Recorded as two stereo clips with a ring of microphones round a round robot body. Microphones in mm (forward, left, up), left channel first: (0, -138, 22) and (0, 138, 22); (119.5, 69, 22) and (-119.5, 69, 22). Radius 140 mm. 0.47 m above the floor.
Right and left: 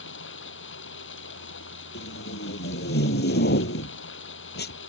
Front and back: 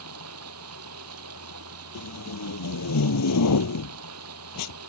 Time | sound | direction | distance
0.0 | running water | 140° right | ?
1.9 | tape being pulled | 35° right | ?